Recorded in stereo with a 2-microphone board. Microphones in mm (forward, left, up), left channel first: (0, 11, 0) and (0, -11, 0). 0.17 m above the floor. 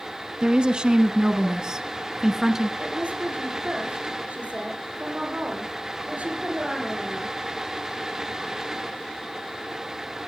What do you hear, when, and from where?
0.4 s a woman speaking: 45° right (ahead or behind), 1.4 m; by 2.7 s 20° right (ahead or behind), 1.6 m
2.8 s a woman speaking: 75° right (ahead or behind), 6.5 m